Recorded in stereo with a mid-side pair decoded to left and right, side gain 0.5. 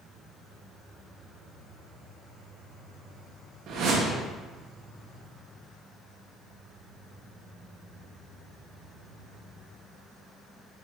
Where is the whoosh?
65° right, 1.4 m.